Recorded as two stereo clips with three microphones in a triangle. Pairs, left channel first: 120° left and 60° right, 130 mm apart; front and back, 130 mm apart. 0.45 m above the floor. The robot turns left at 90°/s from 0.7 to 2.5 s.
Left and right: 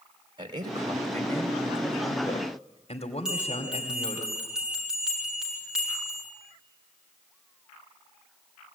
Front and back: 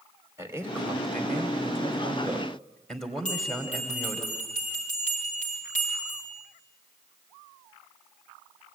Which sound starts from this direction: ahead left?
A bell, at 3.2 s.